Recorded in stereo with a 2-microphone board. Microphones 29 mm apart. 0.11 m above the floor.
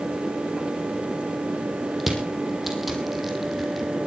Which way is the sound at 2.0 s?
5° right (ahead or behind).